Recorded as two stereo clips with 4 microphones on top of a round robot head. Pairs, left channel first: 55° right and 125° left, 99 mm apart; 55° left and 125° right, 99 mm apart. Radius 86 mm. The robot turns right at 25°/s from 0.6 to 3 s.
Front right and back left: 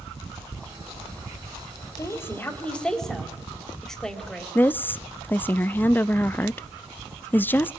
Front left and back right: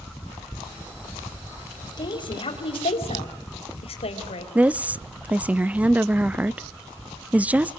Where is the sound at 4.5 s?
75° right, 0.6 m.